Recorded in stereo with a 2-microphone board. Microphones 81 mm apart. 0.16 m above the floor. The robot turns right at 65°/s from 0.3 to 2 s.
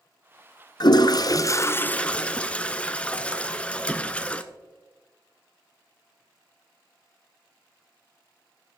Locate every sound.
0.8 s a toilet flushing: 85° left, 0.6 m; by 4.4 s 160° left, 0.6 m